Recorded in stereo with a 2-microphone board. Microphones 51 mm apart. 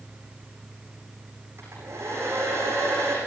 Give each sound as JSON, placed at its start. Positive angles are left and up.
{"t": 1.6, "sound": "a hair dryer", "side_deg": -60, "distance_m": 9.0}